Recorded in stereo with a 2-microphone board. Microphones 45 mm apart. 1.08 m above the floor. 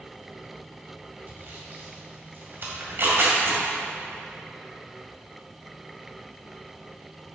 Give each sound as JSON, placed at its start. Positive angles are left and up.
{"t": 1.3, "sound": "sawing", "side_deg": -50, "distance_m": 2.0}
{"t": 2.8, "sound": "tearing paper", "side_deg": -55, "distance_m": 2.5}